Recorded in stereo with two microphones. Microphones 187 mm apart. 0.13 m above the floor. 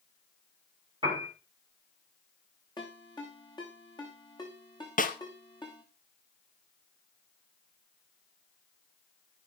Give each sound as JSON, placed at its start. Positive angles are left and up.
{"t": 1.0, "sound": "a piano", "side_deg": -25, "distance_m": 8.5}
{"t": 2.8, "sound": "a ringtone", "side_deg": 20, "distance_m": 6.0}
{"t": 5.0, "sound": "a snare drum", "side_deg": 45, "distance_m": 1.5}